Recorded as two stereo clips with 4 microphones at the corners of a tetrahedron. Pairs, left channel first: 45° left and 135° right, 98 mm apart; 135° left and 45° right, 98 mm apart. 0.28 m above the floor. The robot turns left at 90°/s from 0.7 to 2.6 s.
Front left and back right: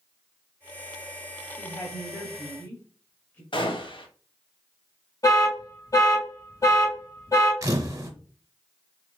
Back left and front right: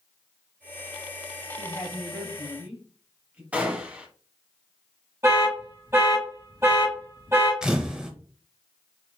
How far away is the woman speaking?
About 1.1 m.